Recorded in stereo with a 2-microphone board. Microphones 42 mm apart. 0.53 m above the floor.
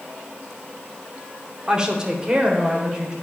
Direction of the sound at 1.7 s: 20° right (ahead or behind).